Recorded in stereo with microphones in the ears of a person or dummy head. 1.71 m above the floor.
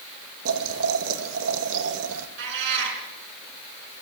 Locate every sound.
0.5 s boiling: 75° right (ahead or behind), 2 m
2.4 s a cat meowing: 65° right (ahead or behind), 5.5 m